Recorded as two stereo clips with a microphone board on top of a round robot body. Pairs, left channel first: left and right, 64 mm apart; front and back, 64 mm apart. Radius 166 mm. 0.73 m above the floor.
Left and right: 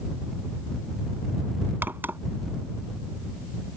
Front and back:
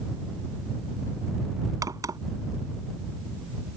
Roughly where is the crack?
Behind right.